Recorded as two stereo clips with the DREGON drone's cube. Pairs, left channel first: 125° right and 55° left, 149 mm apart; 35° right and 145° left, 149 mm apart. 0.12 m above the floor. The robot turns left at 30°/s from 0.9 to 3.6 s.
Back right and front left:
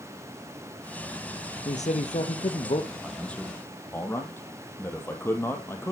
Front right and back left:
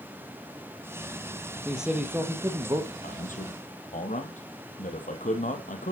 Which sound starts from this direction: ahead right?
A man speaking, at 3.0 s.